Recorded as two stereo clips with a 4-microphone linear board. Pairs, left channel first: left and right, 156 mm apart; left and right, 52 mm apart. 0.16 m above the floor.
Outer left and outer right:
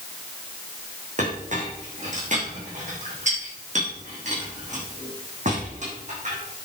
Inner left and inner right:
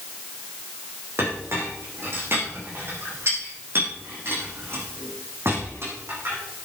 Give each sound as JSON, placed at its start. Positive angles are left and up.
{"t": 1.2, "sound": "a clink", "side_deg": -50, "distance_m": 5.0}